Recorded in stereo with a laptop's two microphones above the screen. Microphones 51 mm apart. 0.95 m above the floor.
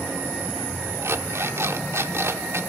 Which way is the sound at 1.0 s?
65° right (ahead or behind).